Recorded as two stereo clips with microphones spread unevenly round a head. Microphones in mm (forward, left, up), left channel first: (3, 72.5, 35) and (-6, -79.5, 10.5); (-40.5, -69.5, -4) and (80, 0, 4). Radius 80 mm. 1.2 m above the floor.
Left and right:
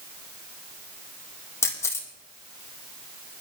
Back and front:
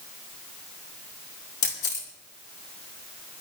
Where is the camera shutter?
160° left, 2 m.